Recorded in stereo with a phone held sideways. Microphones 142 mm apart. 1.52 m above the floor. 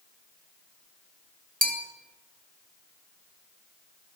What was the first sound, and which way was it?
A bell, 80° right.